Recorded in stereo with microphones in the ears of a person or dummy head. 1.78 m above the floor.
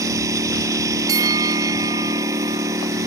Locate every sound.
0.0 s a lawn mower: 10° right (ahead or behind)
1.1 s a bell: 10° right (ahead or behind)